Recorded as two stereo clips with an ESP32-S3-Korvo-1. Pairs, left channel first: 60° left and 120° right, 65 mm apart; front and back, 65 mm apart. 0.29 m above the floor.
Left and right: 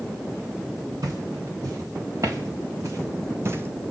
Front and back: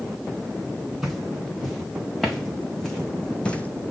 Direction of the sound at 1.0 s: 90° right.